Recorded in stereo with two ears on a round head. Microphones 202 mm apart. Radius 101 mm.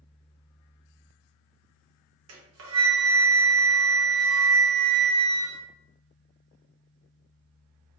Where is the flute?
60° right (ahead or behind), 0.9 m.